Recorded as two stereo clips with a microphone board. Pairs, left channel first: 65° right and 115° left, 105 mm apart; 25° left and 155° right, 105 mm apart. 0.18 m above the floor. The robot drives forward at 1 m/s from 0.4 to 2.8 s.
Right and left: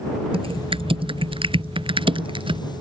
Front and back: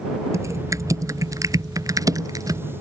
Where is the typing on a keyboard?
145° left; by 2.6 s 150° left.